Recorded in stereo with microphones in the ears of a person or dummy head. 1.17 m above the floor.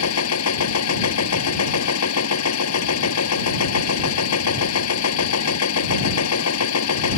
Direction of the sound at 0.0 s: 80° left.